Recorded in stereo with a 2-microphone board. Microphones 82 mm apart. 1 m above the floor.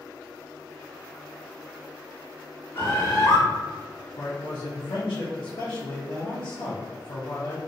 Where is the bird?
35° left (ahead or behind), 1.2 m.